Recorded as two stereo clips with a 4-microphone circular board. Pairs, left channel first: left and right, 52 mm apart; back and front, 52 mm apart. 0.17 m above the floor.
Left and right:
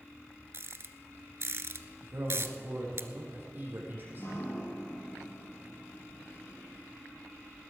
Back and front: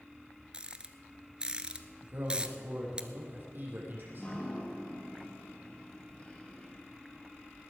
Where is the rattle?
70° right, 0.8 m.